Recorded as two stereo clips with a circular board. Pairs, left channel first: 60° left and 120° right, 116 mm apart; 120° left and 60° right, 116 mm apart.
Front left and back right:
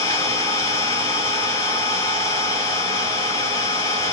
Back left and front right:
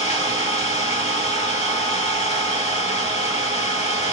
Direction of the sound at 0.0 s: 115° left.